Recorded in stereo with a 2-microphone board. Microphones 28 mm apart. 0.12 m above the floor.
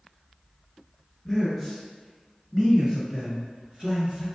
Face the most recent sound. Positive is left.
turn(degrees=-30)  # may be behind; listen again after turning